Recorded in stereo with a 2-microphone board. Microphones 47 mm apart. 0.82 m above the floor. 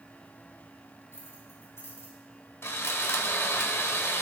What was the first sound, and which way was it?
Keys jangling, 75° left (ahead or behind).